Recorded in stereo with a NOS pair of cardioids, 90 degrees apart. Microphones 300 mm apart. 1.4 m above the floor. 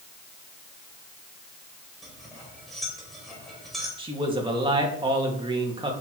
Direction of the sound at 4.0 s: 15° right.